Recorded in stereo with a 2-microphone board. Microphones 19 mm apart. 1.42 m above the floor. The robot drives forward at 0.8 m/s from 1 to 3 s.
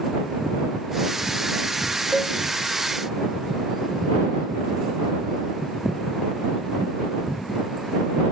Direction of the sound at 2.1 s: 15° right (ahead or behind).